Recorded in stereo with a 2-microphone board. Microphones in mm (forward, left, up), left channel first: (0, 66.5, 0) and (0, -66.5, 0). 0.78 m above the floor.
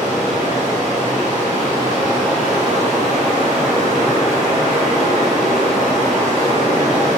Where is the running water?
65° right (ahead or behind), 0.8 m.